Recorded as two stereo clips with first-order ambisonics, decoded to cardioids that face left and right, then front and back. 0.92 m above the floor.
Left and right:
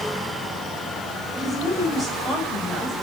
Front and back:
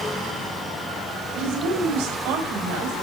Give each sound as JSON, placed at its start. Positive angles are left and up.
{"t": 1.4, "sound": "a woman speaking", "azimuth_deg": -175, "distance_m": 5.0}